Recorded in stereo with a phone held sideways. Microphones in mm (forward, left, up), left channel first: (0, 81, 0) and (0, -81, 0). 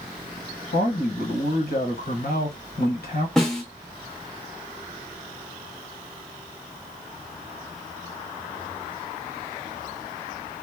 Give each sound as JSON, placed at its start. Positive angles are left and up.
{"t": 0.7, "sound": "a man speaking", "side_deg": 75, "distance_m": 1.1}
{"t": 3.4, "sound": "a snare drum", "side_deg": 5, "distance_m": 0.7}